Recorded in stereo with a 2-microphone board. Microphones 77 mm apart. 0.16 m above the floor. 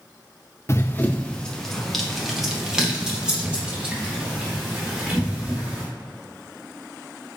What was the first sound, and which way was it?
Running footsteps, 35° left (ahead or behind).